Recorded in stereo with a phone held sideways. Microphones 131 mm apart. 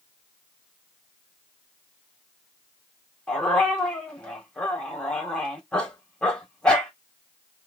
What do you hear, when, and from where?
3.3 s a dog barking: 10° left (ahead or behind), 2 m